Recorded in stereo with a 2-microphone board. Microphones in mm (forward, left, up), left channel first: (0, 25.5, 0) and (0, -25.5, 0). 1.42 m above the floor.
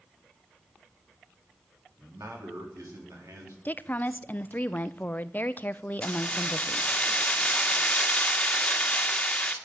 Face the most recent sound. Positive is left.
turn(degrees=20)  # may be behind; listen again after turning